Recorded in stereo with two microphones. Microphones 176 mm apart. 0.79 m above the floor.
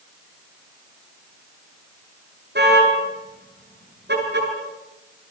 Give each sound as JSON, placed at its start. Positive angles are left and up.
{"t": 2.5, "sound": "a car horn", "side_deg": -75, "distance_m": 8.5}